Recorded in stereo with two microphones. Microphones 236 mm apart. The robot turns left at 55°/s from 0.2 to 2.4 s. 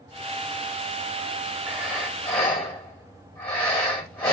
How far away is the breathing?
About 1.2 m.